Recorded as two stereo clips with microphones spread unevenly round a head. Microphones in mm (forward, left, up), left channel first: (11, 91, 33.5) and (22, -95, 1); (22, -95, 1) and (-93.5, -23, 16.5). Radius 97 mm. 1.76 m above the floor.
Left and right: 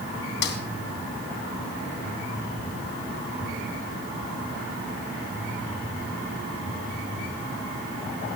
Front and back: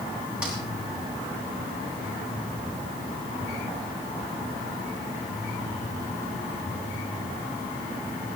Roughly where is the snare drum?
Ahead left.